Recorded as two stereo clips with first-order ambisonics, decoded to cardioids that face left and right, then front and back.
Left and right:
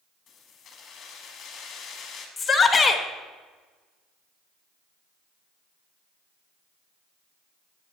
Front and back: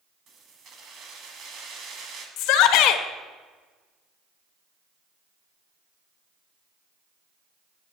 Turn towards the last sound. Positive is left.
turn(degrees=15)